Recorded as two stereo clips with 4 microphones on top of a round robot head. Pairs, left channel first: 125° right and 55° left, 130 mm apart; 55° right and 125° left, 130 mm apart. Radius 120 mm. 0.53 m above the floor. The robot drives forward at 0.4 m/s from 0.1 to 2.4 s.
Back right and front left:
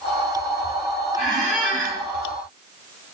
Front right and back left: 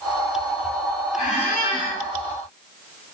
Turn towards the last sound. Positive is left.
turn(degrees=-120)